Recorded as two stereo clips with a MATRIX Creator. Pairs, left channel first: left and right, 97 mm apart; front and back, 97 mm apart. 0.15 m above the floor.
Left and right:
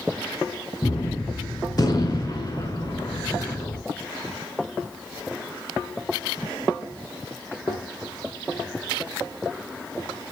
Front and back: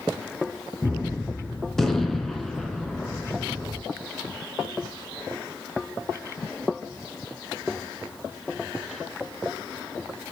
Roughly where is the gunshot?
Left.